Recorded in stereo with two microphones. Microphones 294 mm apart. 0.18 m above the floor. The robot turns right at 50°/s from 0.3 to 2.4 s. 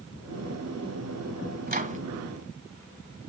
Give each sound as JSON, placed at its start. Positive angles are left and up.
{"t": 1.7, "sound": "a microwave", "side_deg": -30, "distance_m": 1.2}